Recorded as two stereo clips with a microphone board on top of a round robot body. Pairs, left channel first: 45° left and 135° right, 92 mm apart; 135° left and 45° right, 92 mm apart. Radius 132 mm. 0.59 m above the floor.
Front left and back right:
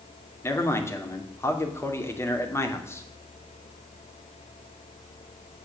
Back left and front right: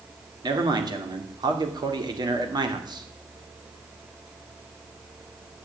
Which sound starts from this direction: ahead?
A man speaking, at 0.4 s.